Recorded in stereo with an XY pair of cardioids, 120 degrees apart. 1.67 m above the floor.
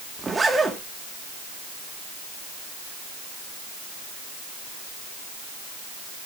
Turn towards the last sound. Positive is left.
turn(degrees=-20)